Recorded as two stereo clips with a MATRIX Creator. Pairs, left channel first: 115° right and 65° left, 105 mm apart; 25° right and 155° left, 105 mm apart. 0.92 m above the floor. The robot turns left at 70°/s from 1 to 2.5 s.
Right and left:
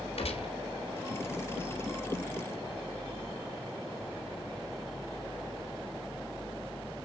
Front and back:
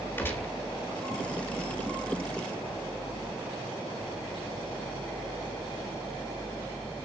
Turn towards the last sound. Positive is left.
turn(degrees=160)